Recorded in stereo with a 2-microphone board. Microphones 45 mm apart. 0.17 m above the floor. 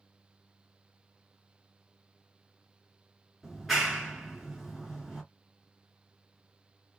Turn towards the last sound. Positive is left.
turn(degrees=-5)  # may be behind; listen again after turning